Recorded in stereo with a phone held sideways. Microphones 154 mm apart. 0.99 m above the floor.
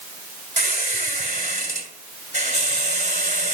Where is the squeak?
50° right (ahead or behind), 2 m.